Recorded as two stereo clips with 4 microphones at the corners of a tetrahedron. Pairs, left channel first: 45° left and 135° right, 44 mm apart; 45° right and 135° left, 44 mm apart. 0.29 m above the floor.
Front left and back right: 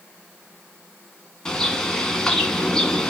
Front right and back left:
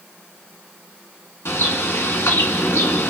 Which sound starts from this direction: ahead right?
A bird, at 1.4 s.